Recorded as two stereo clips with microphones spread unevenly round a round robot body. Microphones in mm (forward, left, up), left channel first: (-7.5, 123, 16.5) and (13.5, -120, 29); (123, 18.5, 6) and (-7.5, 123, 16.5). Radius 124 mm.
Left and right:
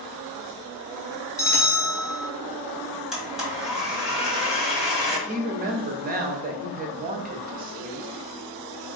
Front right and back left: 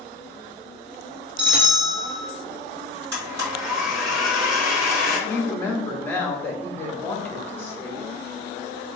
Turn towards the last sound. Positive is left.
turn(degrees=-105)